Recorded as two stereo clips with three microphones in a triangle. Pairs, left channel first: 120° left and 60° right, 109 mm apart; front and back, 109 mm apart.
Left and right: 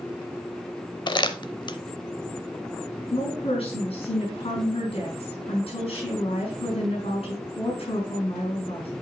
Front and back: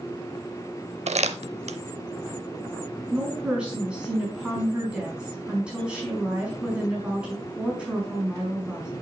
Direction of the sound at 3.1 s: 100° left.